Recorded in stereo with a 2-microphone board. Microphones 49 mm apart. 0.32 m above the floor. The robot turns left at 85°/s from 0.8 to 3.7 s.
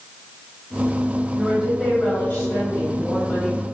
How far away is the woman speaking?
About 1.4 m.